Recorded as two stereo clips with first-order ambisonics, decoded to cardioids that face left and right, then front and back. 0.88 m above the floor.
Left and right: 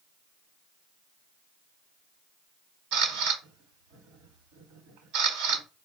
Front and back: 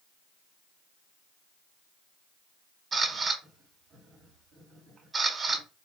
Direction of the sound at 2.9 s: 100° right.